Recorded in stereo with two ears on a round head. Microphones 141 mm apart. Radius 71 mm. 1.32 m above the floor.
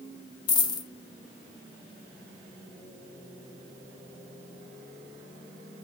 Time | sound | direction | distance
0.5 | a dropped coin | 25° left (ahead or behind) | 1.2 m